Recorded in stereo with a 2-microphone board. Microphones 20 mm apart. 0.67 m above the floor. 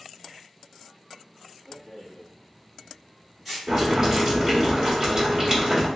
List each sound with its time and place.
1.7 s a rattle: 20° right (ahead or behind), 1.7 m
3.7 s boiling: 35° right (ahead or behind), 1.5 m